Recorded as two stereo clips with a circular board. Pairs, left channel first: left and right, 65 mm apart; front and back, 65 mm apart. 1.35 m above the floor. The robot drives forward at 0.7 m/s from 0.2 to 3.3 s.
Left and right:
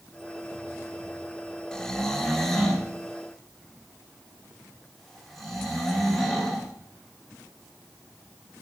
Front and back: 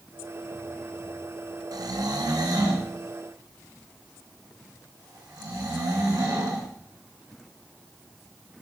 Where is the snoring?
170° left, 0.5 m; by 6.7 s 175° left, 1.6 m.